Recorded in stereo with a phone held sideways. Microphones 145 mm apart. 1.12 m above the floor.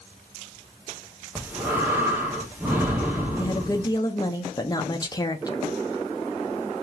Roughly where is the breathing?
Centre.